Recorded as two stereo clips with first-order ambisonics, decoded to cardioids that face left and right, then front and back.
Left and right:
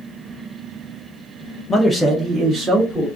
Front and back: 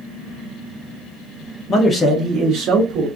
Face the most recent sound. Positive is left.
turn(degrees=-165)